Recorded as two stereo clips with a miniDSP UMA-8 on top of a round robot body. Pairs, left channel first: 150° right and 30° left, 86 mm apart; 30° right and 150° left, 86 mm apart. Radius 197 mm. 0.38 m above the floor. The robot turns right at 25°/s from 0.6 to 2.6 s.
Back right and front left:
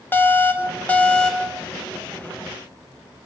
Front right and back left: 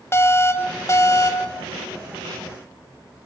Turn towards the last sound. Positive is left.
turn(degrees=-35)